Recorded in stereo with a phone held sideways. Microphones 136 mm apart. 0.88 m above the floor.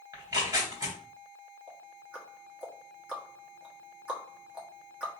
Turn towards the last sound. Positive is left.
turn(degrees=-10)  # may be behind; listen again after turning